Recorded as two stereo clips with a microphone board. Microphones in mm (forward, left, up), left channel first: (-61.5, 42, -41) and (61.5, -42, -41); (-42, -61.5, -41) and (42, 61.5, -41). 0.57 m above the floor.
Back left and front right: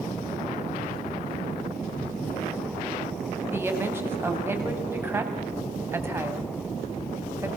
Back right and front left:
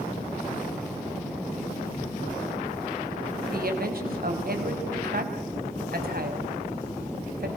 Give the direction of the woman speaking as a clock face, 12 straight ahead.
11 o'clock.